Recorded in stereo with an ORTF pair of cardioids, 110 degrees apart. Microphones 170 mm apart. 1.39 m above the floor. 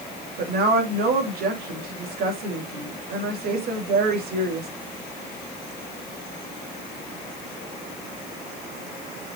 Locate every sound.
0.4 s a woman speaking: 65° right, 3 m